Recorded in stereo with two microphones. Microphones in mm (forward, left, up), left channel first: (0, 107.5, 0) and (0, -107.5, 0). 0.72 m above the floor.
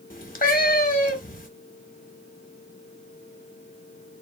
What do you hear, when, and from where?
0.1 s a cat meowing: 40° left (ahead or behind), 0.6 m